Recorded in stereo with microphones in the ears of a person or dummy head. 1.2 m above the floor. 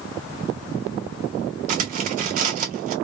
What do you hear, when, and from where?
1.7 s cutlery clinking: 40° right (ahead or behind), 0.7 m